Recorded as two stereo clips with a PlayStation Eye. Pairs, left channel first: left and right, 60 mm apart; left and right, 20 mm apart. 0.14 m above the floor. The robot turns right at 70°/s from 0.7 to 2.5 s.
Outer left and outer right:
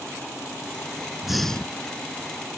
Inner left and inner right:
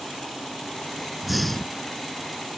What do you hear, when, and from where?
1.2 s breathing: 10° right; by 1.9 s 40° left